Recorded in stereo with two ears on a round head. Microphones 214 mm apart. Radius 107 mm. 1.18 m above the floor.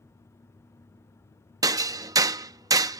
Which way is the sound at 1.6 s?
15° right (ahead or behind).